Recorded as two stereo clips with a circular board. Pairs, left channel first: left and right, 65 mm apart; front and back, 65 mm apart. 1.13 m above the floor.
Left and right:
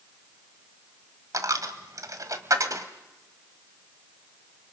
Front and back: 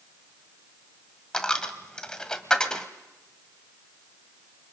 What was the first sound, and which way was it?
A dropped coin, 75° right.